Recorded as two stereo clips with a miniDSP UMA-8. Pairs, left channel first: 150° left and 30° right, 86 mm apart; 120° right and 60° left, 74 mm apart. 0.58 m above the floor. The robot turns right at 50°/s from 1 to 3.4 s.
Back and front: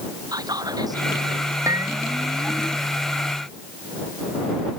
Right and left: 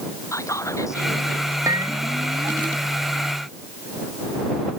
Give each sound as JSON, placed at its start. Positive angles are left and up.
{"t": 0.3, "sound": "whispering", "azimuth_deg": -70}
{"t": 1.7, "sound": "a bell", "azimuth_deg": 20}